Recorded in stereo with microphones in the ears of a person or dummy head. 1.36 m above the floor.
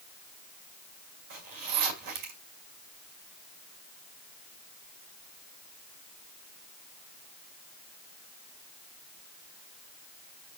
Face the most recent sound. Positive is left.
turn(degrees=-45)  # may be behind; listen again after turning